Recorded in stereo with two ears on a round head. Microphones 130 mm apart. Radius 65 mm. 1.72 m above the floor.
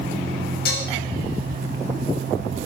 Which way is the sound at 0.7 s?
70° left (ahead or behind).